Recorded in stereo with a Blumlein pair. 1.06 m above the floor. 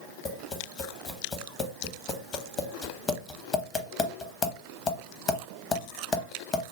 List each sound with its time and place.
0.2 s tapping: 25° left, 0.8 m